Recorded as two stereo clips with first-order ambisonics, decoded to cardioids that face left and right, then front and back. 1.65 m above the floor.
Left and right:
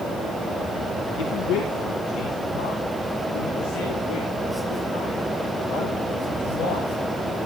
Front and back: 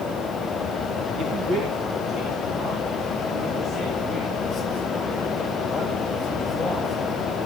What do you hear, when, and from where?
1.2 s a man speaking: 120° left, 2.0 m; by 6.9 s 80° left, 9.5 m